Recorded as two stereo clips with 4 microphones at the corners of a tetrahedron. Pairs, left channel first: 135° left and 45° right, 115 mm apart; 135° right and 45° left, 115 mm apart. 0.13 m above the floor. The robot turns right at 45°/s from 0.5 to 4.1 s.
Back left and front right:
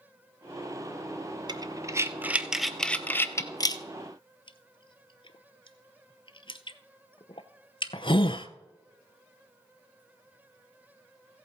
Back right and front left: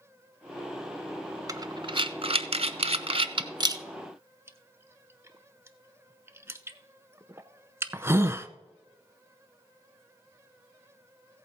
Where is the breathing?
10° right, 0.7 m; by 8.5 s 110° left, 0.7 m.